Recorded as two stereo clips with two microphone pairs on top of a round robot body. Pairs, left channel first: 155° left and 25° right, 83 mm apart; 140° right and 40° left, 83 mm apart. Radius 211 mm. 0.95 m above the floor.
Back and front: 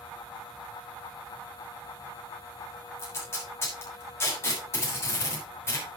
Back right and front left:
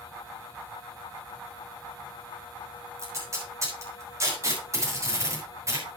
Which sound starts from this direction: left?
Tape being pulled, at 3.0 s.